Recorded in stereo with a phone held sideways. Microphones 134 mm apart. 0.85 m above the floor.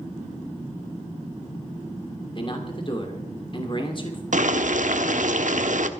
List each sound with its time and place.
2.4 s a man speaking: 40° left (ahead or behind), 2.5 m
4.3 s boiling: 70° right (ahead or behind), 0.9 m